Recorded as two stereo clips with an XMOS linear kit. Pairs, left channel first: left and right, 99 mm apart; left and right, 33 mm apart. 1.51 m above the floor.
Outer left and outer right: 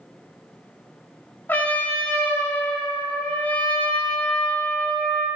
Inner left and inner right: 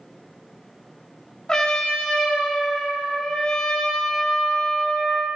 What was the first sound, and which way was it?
A trumpet, 20° left (ahead or behind).